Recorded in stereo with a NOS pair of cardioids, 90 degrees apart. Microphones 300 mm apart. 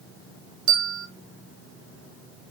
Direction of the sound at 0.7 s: 50° right.